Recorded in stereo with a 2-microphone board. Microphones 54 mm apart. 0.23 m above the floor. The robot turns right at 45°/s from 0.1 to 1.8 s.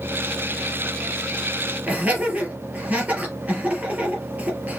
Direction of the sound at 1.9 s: 25° right (ahead or behind).